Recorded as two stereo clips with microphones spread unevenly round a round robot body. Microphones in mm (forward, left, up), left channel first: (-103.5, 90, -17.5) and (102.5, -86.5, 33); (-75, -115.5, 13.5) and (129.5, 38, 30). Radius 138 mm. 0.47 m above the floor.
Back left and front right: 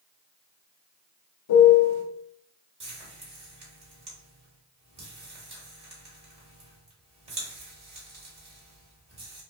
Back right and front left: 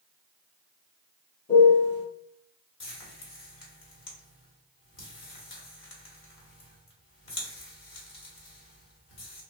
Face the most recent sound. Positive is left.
turn(degrees=-115)